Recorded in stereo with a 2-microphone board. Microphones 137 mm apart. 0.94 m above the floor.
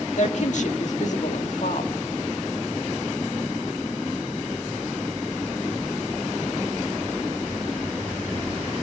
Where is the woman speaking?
60° left (ahead or behind), 1.8 m.